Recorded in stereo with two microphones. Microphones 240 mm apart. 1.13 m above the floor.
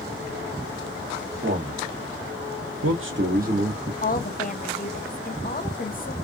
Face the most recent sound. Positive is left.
turn(degrees=35)  # may be behind; listen again after turning